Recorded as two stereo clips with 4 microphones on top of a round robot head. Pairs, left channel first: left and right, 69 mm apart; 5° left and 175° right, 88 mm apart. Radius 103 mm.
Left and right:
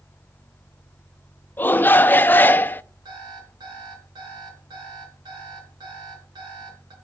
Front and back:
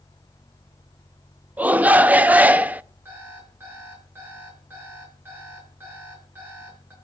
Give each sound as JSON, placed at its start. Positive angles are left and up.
{"t": 1.6, "sound": "a shout", "azimuth_deg": 125, "distance_m": 0.7}
{"t": 3.0, "sound": "an alarm clock", "azimuth_deg": -105, "distance_m": 6.0}